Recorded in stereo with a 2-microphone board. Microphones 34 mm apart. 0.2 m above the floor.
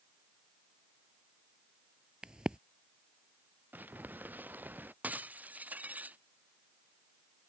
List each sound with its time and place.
2.2 s a crack: 25° right (ahead or behind)
3.7 s crumpling: 60° right (ahead or behind)
5.0 s breaking glass: 55° right (ahead or behind)